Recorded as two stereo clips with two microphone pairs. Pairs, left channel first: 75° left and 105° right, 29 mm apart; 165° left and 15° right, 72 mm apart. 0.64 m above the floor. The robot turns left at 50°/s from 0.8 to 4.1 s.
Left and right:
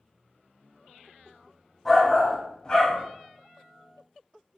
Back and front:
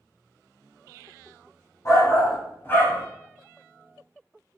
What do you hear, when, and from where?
1.9 s a shout: 165° left, 1.0 m; by 3.0 s 105° left, 1.0 m